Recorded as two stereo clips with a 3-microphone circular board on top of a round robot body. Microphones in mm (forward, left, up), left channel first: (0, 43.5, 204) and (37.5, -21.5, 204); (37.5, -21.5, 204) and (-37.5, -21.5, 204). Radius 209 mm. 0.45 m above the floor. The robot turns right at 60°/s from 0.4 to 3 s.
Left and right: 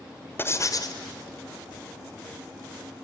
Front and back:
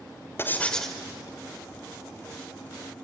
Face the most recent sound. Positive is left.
turn(degrees=-145)